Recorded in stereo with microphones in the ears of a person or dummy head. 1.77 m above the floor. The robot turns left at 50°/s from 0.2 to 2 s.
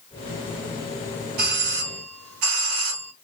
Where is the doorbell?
55° right, 1.1 m; by 3.1 s 90° right, 1.1 m.